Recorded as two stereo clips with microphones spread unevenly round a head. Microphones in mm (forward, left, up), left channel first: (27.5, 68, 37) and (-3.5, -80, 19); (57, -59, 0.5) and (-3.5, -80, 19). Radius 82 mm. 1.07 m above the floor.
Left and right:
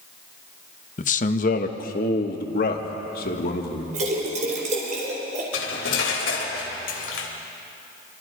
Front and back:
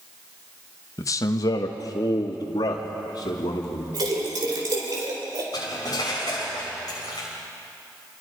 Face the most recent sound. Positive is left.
turn(degrees=85)